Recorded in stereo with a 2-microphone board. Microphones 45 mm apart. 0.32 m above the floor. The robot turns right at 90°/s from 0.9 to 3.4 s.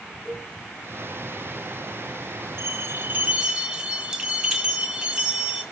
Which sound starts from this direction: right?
A bell, at 2.6 s.